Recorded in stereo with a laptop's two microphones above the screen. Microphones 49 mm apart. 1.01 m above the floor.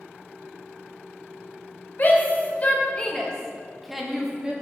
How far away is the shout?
About 1.5 m.